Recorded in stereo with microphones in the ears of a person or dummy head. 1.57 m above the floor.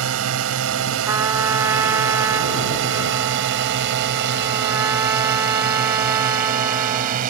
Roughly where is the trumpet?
Centre.